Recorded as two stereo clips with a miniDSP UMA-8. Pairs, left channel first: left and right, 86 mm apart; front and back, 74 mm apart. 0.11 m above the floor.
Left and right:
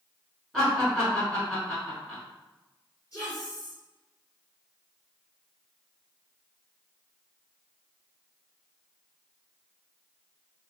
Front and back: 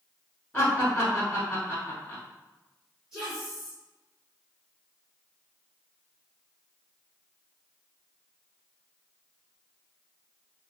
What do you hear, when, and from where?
0.5 s laughter: 15° left, 1.2 m
3.1 s a woman speaking: 105° left, 1.9 m